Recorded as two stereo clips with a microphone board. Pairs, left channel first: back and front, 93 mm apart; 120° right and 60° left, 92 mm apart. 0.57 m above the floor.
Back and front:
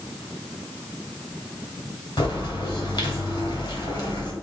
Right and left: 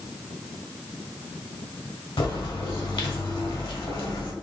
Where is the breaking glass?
No breaking glass in this recording.